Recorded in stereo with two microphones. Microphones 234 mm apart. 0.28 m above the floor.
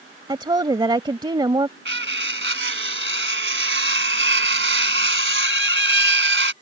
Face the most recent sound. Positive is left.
turn(degrees=-60)  # may be behind; listen again after turning